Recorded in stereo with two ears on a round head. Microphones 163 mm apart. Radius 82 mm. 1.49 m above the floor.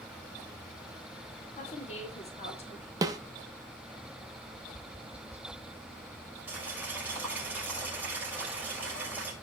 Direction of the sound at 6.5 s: 10° right (ahead or behind).